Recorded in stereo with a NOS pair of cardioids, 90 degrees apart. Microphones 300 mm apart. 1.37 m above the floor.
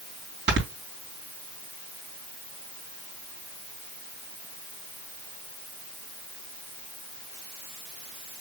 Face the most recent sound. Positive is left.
turn(degrees=-35)